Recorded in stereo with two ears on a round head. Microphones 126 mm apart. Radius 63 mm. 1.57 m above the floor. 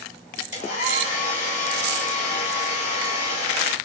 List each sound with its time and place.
0.5 s a hair dryer: 55° left (ahead or behind), 1.9 m